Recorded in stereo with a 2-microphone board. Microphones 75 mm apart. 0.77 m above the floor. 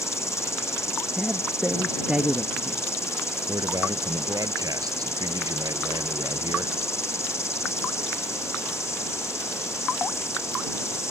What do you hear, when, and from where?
0.0 s an insect: 40° left (ahead or behind)
1.2 s a man speaking: 10° right (ahead or behind)
3.5 s a man speaking: 50° right (ahead or behind)